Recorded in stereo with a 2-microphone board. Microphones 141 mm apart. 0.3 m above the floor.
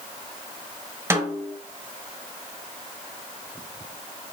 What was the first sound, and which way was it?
A snare drum, 20° right (ahead or behind).